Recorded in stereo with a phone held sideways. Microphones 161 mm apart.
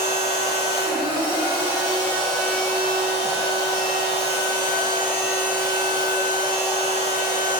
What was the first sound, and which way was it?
A machine running, 30° left (ahead or behind).